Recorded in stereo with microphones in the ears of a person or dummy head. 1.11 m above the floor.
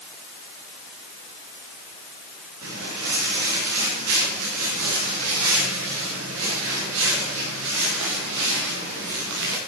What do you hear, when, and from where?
2.6 s footsteps: 80° right, 8 m; by 9.6 s 60° right (ahead or behind), 6.5 m